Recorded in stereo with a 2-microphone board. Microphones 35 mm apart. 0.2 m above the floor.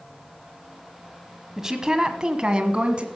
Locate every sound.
1.6 s a woman speaking: 15° right (ahead or behind), 1.2 m; by 3.0 s 30° right (ahead or behind), 1.7 m